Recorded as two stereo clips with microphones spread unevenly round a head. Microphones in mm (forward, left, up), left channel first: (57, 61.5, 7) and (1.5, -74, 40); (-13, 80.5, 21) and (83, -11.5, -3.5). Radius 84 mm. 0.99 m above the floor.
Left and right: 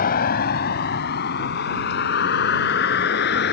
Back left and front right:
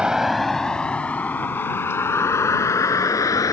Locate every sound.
0.0 s a vehicle: 40° left; by 3.5 s 70° left